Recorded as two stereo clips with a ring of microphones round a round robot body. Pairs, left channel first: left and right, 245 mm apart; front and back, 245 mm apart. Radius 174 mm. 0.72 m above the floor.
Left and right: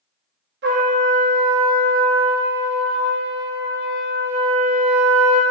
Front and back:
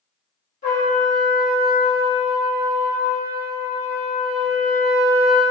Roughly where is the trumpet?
Ahead right.